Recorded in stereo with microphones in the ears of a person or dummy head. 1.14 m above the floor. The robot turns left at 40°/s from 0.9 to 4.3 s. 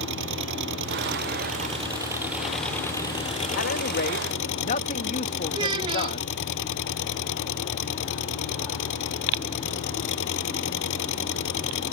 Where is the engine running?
115° right; by 11.9 s 105° left.